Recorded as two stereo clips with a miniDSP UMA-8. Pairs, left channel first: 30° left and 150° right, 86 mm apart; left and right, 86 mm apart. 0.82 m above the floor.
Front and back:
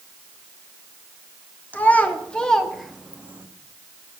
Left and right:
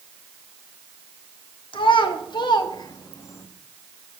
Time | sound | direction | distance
1.7 | a child speaking | 100° left | 1.4 m